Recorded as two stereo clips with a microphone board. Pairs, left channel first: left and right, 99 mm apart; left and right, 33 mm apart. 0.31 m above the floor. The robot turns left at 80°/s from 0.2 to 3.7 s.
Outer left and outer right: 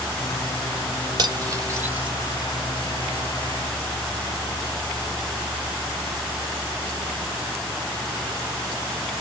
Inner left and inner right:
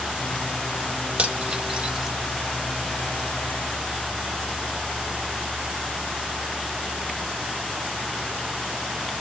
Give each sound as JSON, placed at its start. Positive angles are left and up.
{"t": 1.2, "sound": "cutlery clinking", "side_deg": -45, "distance_m": 0.8}